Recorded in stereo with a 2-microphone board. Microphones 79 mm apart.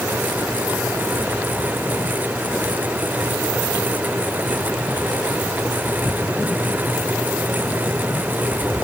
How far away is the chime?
I don't hear a chime.